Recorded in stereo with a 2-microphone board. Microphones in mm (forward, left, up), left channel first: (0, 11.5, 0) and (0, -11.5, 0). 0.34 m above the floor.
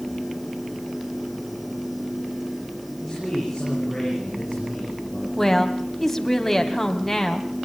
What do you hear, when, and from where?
3.0 s a man speaking: 5° left (ahead or behind), 9.5 m
5.4 s a woman speaking: 15° left (ahead or behind), 1.8 m